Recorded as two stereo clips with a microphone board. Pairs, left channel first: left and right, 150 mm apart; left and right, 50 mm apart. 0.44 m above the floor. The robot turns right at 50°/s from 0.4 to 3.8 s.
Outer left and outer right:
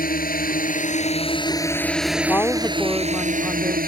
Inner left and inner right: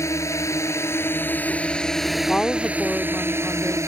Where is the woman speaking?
20° left (ahead or behind); by 3.8 s 10° right (ahead or behind).